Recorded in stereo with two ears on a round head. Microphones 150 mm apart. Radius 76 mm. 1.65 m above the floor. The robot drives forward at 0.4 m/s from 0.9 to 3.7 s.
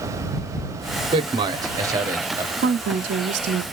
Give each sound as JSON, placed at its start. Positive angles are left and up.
{"t": 1.1, "sound": "a man speaking", "side_deg": -30, "distance_m": 0.6}
{"t": 2.6, "sound": "a woman speaking", "side_deg": -65, "distance_m": 0.5}